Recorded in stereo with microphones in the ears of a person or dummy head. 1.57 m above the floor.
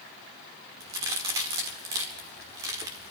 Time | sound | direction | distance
0.8 | a crack | 20° right (ahead or behind) | 1.5 m